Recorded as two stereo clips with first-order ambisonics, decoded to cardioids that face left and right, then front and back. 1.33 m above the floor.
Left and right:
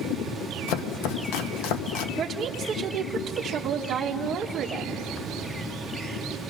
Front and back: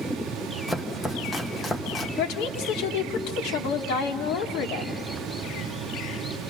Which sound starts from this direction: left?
Chopping, at 0.7 s.